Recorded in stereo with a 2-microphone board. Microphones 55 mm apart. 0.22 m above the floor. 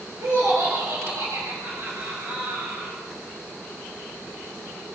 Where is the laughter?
70° right (ahead or behind), 4 m; by 3.0 s 65° right (ahead or behind), 5.5 m.